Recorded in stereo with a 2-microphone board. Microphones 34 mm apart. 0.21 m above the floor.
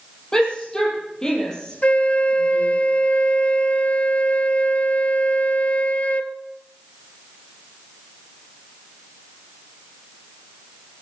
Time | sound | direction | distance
0.3 | a shout | 20° left (ahead or behind) | 8.5 m
1.8 | a flute | 40° left (ahead or behind) | 1.0 m